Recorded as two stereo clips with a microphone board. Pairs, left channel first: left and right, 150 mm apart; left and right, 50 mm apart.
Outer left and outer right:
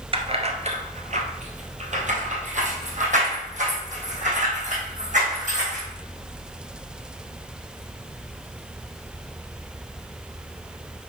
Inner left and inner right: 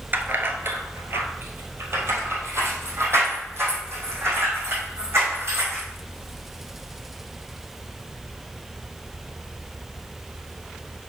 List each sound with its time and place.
0.1 s keys jangling: 40° right (ahead or behind), 1.0 m; by 5.9 s 55° right (ahead or behind), 4 m